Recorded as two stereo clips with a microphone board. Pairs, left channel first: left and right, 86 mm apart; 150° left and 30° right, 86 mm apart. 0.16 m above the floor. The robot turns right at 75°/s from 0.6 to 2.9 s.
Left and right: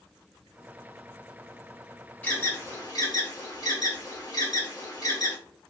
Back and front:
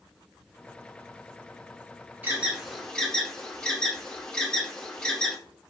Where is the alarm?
30° left, 1.5 m; by 5.4 s 80° left, 1.5 m.